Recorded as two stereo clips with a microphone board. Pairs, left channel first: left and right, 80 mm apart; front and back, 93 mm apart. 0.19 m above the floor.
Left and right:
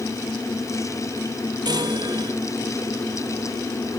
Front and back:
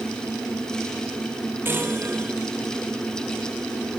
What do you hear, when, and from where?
1.6 s a chime: 115° right